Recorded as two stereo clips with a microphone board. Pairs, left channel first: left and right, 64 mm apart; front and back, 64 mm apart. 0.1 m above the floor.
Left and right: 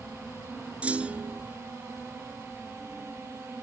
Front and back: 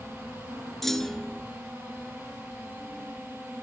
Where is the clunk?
75° right, 0.9 m.